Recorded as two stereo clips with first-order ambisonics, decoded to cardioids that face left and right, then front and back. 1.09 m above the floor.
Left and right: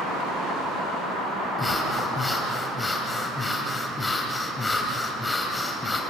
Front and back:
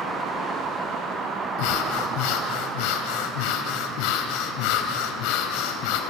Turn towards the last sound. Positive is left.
turn(degrees=10)